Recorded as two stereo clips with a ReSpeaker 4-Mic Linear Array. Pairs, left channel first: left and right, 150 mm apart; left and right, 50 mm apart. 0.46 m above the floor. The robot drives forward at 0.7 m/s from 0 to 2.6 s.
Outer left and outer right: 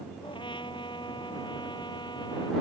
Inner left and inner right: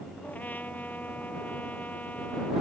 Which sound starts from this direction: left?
A trumpet, at 0.2 s.